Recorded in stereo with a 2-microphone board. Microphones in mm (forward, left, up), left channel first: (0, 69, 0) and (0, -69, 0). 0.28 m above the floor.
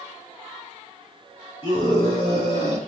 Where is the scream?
45° left (ahead or behind), 4 m; by 2.8 s 40° left (ahead or behind), 3.5 m.